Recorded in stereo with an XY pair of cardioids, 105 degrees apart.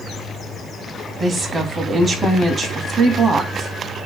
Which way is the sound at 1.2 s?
35° right.